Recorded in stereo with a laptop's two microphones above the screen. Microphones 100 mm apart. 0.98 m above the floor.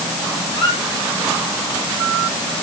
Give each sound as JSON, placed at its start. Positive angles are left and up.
{"t": 0.5, "sound": "a squeak", "side_deg": 50, "distance_m": 7.0}